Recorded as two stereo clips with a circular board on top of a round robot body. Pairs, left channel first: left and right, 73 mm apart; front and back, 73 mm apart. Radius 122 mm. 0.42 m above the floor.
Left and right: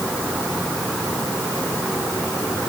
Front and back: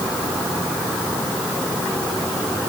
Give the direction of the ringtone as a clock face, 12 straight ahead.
I don't hear a ringtone.